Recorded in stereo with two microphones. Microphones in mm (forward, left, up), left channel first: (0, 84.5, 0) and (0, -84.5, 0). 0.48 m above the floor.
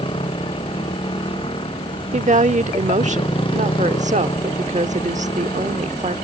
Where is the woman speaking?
45° right (ahead or behind).